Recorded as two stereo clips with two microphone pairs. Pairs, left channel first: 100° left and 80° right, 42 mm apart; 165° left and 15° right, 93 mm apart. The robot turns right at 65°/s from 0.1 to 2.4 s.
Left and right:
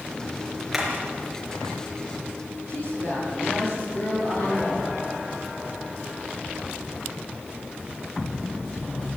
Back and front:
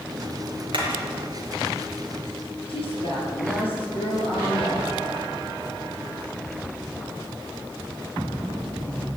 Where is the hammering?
5° left, 5 m; by 0.9 s 15° left, 5 m.